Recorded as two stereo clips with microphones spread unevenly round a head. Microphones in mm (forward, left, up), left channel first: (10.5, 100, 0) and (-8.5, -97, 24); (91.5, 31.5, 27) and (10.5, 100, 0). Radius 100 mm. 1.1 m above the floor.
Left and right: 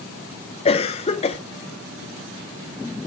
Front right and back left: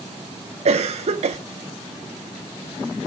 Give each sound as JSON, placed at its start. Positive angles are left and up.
{"t": 0.7, "sound": "a cough", "azimuth_deg": 145, "distance_m": 0.5}